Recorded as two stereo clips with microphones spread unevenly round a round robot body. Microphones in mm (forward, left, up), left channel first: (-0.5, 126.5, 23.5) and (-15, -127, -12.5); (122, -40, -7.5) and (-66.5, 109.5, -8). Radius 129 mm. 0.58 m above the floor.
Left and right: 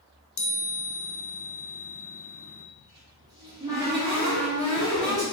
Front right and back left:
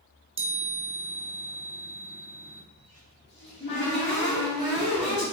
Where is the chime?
75° left, 0.7 m.